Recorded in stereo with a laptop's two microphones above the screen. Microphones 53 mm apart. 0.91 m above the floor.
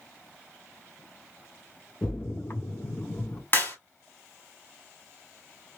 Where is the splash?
50° left (ahead or behind), 0.6 m.